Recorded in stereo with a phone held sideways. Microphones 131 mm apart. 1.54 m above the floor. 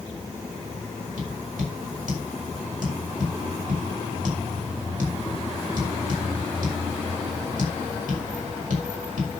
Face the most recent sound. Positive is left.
turn(degrees=-85)